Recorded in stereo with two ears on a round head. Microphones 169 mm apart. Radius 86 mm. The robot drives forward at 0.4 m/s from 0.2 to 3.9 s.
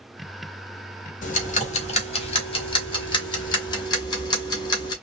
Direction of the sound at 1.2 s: 50° left (ahead or behind).